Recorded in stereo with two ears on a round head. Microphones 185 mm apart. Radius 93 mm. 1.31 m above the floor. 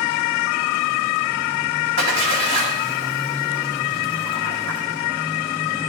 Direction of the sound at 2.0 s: 85° right.